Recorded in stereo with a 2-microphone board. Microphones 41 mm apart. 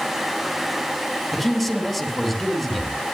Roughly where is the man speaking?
Centre.